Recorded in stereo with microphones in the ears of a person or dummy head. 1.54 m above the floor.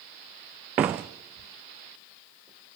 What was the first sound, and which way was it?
A door slam, 10° right (ahead or behind).